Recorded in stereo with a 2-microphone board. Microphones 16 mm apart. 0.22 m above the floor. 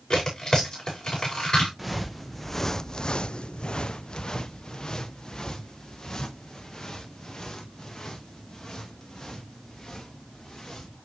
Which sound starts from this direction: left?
Tearing paper, at 0.1 s.